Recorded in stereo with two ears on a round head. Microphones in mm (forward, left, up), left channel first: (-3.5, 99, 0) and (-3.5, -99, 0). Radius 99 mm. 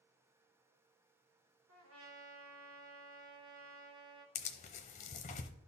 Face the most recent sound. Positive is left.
turn(degrees=35)  # may be behind; listen again after turning